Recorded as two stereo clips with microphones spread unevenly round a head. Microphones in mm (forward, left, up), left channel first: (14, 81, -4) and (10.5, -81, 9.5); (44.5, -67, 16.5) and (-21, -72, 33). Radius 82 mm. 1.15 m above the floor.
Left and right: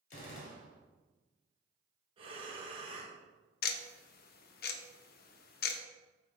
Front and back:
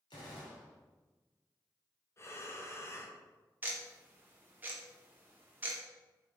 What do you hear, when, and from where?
0.1 s a gunshot: 45° left, 2 m
2.2 s breathing: 30° right, 1.7 m
3.6 s ticking: 110° left, 0.7 m